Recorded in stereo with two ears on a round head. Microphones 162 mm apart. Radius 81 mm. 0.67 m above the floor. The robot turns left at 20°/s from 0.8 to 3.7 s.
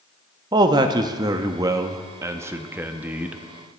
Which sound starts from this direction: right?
A man speaking, at 0.5 s.